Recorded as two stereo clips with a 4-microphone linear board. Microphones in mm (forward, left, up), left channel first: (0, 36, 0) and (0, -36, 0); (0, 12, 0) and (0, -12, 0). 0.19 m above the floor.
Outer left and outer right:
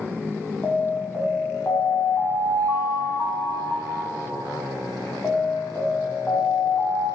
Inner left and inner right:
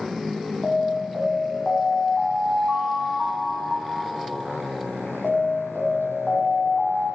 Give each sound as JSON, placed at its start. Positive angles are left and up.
{"t": 0.6, "sound": "an alarm", "side_deg": 25, "distance_m": 7.0}